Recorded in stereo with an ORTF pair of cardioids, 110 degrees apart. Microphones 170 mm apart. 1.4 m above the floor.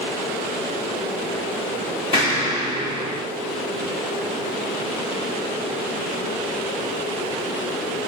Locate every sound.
2.1 s an explosion: 35° left, 1.7 m